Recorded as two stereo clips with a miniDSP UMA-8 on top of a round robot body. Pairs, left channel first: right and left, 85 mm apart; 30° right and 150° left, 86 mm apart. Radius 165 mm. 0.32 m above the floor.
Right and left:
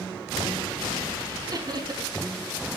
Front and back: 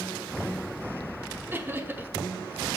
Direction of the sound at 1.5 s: 95° left.